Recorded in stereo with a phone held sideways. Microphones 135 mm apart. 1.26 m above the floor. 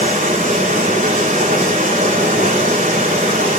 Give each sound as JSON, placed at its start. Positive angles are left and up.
{"t": 0.0, "sound": "running water", "side_deg": -70, "distance_m": 4.0}